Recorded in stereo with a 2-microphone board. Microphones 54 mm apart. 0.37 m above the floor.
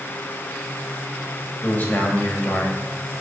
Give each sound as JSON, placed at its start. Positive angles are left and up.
{"t": 1.6, "sound": "a man speaking", "side_deg": 35, "distance_m": 1.5}